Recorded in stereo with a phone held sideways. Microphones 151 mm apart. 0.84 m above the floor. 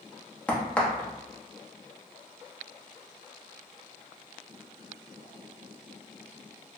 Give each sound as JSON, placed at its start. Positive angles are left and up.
{"t": 0.5, "sound": "a crack", "side_deg": 10, "distance_m": 0.8}